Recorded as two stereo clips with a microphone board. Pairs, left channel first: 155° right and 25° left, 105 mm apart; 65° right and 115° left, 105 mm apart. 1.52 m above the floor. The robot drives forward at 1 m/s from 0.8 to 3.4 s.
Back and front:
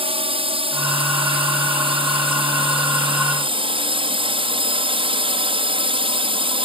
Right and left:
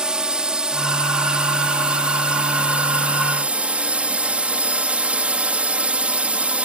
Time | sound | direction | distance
0.0 | a drone | 30° left | ?